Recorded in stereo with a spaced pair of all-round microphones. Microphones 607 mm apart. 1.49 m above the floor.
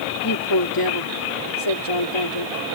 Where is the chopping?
No chopping in this recording.